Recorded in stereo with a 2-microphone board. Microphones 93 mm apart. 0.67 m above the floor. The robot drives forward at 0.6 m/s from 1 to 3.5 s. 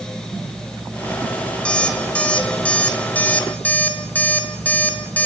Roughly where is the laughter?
I don't hear laughter.